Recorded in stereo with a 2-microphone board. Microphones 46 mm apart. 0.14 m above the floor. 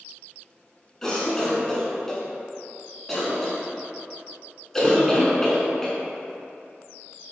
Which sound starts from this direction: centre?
A cough, at 1.0 s.